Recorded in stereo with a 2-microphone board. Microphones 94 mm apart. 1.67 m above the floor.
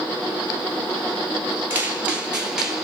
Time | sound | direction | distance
1.7 | footsteps | 20° right (ahead or behind) | 1.7 m